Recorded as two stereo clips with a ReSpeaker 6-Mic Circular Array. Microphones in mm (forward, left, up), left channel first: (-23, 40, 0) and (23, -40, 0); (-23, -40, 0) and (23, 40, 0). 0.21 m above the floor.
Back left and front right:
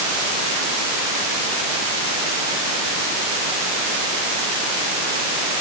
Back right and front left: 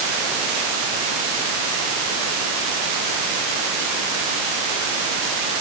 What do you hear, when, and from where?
Only background noise.